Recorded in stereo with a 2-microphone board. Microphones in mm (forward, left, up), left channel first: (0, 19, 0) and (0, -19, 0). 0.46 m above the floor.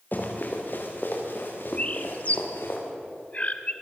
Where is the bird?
40° left (ahead or behind), 1.4 m.